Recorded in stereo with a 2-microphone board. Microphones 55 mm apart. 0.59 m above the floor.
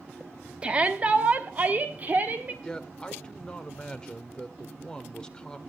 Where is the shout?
20° right (ahead or behind), 1.1 m; by 2.5 s 35° right (ahead or behind), 2.0 m.